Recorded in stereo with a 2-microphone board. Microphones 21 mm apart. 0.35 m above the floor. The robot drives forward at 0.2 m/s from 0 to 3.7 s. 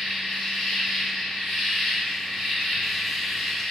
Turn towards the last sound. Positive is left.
turn(degrees=50)  # may be behind; listen again after turning